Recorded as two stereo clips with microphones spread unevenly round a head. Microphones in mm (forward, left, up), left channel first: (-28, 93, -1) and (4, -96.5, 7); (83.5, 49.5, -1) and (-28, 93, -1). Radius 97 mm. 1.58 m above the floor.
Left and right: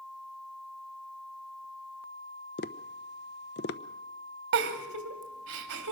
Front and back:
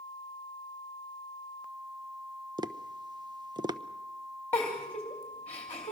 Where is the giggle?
105° right, 2.5 m.